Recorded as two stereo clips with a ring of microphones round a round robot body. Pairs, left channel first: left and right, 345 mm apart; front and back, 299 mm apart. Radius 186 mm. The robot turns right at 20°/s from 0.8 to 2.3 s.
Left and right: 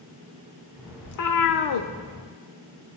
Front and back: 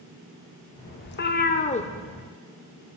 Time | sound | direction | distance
1.1 | a cat meowing | 55° left | 0.6 m